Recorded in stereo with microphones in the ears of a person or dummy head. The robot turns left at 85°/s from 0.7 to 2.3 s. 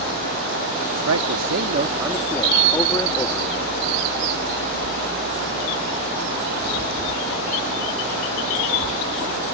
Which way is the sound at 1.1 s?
85° right.